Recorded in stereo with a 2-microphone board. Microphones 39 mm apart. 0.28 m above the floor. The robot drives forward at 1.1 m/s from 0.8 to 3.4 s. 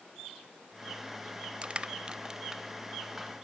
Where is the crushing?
25° right (ahead or behind), 0.6 m; by 3.3 s 10° right (ahead or behind), 1.8 m.